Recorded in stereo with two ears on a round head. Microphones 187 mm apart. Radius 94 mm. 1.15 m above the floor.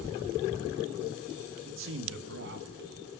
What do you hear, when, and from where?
1.6 s a man speaking: 65° right (ahead or behind), 1.9 m; by 2.9 s 45° right (ahead or behind), 1.4 m